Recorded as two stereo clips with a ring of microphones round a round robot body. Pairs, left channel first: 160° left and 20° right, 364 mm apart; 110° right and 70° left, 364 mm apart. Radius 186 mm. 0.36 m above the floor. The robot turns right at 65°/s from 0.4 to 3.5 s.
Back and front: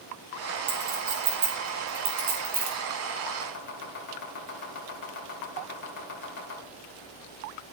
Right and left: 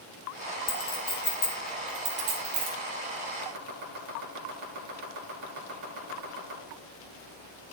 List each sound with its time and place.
0.7 s a clink: 90° right, 3.5 m; by 2.8 s 45° left, 3.5 m
3.4 s chopping: 110° left, 2.5 m; by 6.6 s 115° left, 2.5 m